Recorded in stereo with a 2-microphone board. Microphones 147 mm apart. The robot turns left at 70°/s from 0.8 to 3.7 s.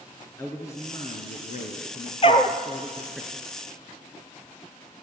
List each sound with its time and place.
0.4 s a man speaking: 160° left, 2.5 m; by 3.2 s 10° right, 2.5 m
2.2 s a dog barking: 40° left (ahead or behind), 1.3 m; by 2.6 s 20° left (ahead or behind), 1.3 m